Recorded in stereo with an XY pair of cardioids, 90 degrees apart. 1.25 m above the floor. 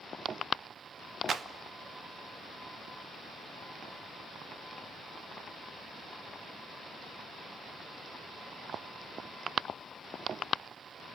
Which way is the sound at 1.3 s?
50° right.